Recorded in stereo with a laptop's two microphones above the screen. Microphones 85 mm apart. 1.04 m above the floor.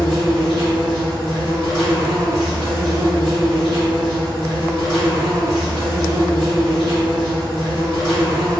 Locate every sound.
0.0 s an insect: 50° right (ahead or behind), 1.4 m